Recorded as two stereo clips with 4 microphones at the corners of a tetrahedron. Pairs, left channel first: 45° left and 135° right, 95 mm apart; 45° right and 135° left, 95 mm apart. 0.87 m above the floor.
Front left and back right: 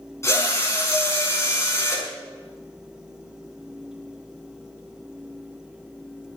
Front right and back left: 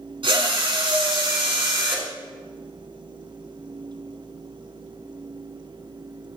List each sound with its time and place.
0.2 s a drill: 105° left, 5.5 m